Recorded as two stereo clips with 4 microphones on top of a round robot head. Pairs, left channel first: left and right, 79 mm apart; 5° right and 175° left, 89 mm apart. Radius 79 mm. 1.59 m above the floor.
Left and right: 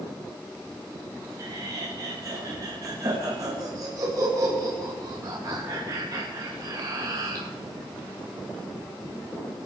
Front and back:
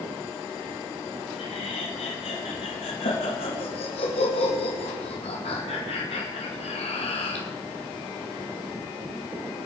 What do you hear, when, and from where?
1.4 s laughter: 30° right, 2.5 m